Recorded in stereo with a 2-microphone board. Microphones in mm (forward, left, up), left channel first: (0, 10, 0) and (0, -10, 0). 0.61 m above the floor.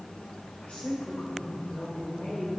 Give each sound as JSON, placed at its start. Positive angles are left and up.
{"t": 0.6, "sound": "a woman speaking", "side_deg": 65, "distance_m": 2.5}